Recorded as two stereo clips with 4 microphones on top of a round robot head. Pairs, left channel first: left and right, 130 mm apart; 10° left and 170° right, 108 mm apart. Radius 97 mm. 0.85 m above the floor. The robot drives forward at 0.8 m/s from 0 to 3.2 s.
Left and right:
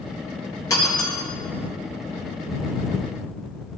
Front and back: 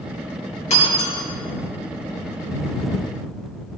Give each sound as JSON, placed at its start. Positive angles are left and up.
{"t": 0.7, "sound": "breaking glass", "azimuth_deg": 25, "distance_m": 4.5}